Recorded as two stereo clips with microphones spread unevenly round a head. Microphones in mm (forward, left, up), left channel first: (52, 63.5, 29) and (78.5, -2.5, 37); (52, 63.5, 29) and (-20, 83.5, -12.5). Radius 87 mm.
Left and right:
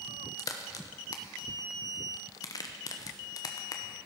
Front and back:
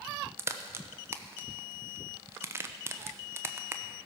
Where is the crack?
135° left, 1.0 m.